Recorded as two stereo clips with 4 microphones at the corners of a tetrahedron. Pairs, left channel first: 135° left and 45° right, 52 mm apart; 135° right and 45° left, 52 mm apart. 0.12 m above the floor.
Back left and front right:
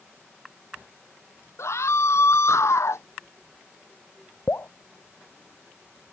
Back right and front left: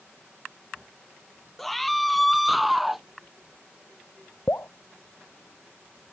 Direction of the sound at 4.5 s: Straight behind.